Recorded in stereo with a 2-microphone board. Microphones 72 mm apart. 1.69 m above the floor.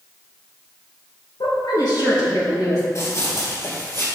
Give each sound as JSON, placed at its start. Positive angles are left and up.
{"t": 1.4, "sound": "a woman speaking", "side_deg": 85, "distance_m": 2.5}
{"t": 3.0, "sound": "running footsteps", "side_deg": 40, "distance_m": 2.5}